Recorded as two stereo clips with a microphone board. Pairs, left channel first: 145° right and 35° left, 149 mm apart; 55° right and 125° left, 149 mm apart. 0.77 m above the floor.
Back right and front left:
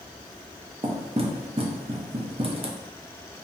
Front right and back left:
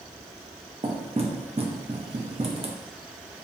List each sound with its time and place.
0.8 s knocking: 80° left, 0.6 m